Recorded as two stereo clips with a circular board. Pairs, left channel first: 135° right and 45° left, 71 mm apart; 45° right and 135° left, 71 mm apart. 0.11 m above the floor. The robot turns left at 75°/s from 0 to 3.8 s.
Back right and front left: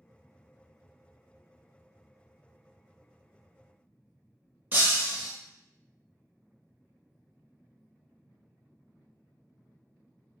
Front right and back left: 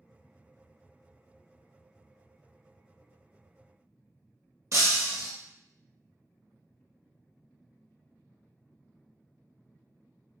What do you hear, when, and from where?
4.7 s breaking glass: 100° left, 0.9 m